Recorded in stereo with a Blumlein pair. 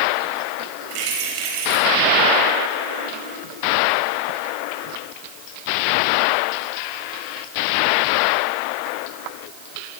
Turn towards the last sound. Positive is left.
turn(degrees=-45)